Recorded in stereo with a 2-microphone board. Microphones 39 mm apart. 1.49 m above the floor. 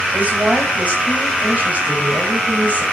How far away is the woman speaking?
About 8 m.